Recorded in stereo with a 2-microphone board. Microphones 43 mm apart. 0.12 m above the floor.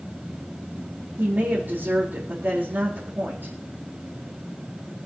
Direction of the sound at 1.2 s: 50° right (ahead or behind).